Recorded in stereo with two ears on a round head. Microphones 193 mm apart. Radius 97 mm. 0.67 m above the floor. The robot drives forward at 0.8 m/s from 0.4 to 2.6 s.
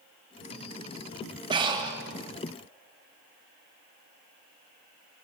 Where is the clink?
No clink in this recording.